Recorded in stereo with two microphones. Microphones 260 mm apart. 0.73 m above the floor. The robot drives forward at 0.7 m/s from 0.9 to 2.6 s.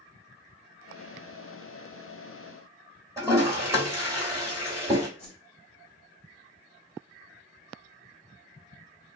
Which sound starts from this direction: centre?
A toilet flushing, at 3.2 s.